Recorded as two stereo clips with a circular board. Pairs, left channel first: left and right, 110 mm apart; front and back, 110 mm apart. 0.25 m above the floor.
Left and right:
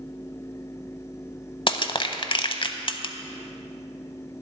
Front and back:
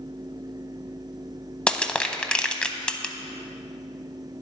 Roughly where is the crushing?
Left.